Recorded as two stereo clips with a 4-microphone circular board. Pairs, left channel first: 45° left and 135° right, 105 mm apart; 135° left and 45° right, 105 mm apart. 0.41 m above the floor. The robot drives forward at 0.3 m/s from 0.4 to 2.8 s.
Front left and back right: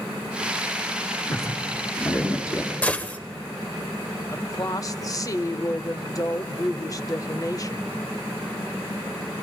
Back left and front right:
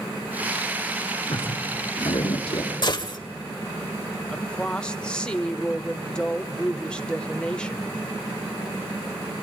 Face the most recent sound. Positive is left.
turn(degrees=60)